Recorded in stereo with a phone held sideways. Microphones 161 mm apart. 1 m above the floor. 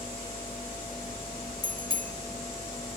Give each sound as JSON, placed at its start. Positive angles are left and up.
{"t": 1.6, "sound": "a bicycle bell", "side_deg": -35, "distance_m": 3.0}